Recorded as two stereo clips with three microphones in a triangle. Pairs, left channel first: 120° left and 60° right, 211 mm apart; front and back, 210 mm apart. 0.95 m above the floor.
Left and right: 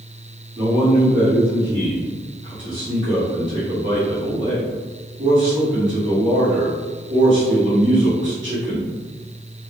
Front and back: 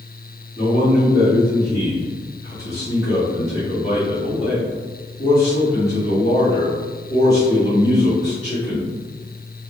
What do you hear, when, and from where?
0.6 s a man speaking: 50° right, 1.7 m